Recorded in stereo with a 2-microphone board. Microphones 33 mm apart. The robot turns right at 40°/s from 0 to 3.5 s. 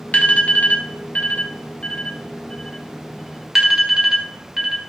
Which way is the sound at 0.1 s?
45° left (ahead or behind).